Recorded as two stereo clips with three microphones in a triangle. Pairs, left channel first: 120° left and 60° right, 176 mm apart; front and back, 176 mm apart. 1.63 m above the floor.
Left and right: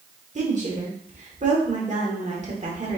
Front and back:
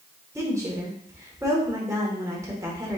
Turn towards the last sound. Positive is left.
turn(degrees=-110)